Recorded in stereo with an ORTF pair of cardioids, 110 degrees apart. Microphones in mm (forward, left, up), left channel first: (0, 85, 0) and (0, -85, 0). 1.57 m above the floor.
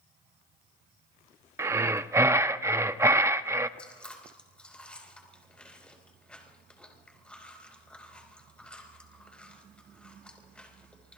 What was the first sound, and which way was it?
Breathing, 15° right.